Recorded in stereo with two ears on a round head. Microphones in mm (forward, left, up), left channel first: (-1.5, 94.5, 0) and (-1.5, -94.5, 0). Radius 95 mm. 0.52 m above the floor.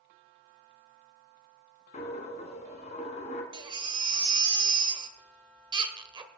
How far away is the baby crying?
About 1.1 m.